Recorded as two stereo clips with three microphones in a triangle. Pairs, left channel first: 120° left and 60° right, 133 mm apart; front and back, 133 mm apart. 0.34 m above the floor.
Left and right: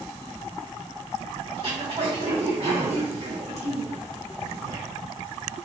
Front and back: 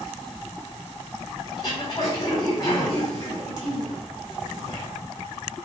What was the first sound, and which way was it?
Throat clearing, 40° right.